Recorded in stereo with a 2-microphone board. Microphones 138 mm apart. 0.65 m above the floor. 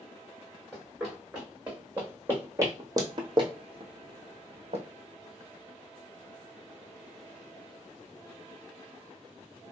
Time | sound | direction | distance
0.7 | running footsteps | centre (ahead or behind) | 2 m